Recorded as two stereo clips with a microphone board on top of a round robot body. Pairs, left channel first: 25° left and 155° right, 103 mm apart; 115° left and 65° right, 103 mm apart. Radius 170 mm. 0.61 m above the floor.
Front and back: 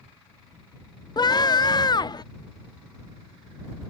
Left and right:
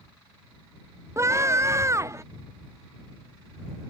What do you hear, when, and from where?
1.2 s a scream: 10° right